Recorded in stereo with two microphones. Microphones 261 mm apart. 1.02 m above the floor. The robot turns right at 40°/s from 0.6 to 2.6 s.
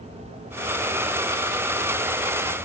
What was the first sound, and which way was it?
Only background noise.